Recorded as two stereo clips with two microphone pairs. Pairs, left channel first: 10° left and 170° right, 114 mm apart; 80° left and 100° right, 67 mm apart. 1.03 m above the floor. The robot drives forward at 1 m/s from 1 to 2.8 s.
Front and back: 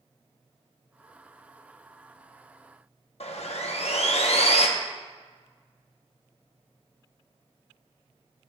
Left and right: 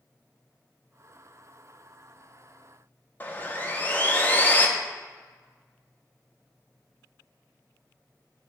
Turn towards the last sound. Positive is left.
turn(degrees=20)